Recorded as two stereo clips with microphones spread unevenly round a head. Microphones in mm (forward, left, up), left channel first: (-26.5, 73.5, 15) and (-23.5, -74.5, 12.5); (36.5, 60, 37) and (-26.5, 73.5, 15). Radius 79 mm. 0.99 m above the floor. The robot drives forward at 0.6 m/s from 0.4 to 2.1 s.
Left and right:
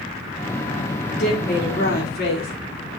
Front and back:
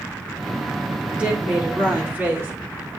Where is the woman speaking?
100° left, 3 m; by 2.5 s 110° left, 3 m.